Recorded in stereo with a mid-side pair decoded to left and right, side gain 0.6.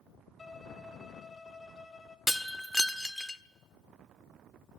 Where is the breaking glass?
Straight ahead, 1.5 m.